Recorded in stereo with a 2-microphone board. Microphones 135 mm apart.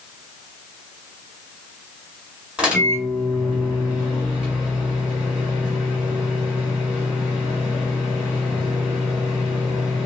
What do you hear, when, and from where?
2.6 s a microwave: 5° right (ahead or behind), 1.6 m